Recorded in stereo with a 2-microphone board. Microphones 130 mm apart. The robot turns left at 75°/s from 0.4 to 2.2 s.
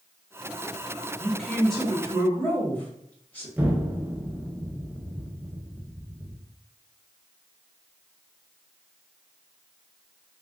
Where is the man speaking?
10° right (ahead or behind), 1.0 m; by 3.5 s 15° left (ahead or behind), 1.0 m.